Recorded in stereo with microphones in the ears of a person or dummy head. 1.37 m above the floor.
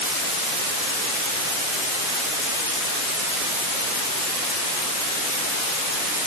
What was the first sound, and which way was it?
Only background noise.